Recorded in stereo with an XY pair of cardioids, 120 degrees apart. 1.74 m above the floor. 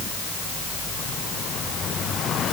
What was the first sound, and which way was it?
Only background noise.